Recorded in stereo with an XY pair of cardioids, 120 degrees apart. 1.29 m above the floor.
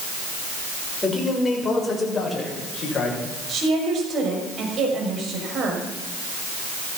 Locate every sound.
1.0 s a man speaking: 5° left, 6 m; by 3.2 s 25° left, 7.5 m
3.5 s a woman speaking: 50° right, 5.5 m